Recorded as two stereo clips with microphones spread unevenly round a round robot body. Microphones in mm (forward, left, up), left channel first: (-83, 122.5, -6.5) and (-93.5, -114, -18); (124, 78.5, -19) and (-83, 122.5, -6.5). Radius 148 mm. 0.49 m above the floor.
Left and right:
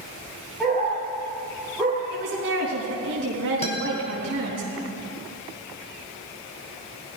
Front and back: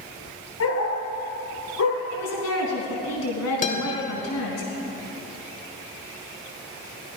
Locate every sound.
0.6 s a dog barking: 5° right, 3 m
2.1 s a woman speaking: 40° right, 3.5 m
3.6 s a guitar: 25° left, 1.7 m